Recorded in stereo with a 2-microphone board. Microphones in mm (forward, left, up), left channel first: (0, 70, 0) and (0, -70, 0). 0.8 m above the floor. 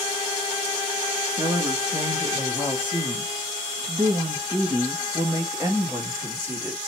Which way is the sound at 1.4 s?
25° right (ahead or behind).